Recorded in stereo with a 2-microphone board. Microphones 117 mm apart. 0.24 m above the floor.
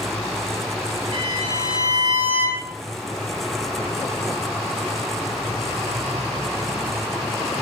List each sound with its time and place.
1.1 s a violin: 35° left (ahead or behind), 4 m